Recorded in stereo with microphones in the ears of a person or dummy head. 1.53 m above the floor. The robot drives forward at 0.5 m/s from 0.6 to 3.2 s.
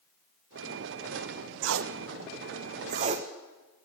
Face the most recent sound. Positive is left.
turn(degrees=-35)  # may be behind; listen again after turning